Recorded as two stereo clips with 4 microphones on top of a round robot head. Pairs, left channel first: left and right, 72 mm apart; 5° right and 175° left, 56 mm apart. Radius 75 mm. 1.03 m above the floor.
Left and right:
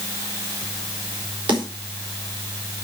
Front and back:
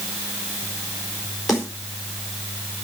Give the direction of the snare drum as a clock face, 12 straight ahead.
3 o'clock.